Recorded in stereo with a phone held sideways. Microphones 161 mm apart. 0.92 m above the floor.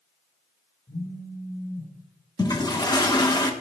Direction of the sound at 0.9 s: 55° left (ahead or behind).